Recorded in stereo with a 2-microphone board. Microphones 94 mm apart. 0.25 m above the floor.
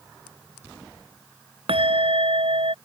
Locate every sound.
1.7 s a bell: 75° right (ahead or behind)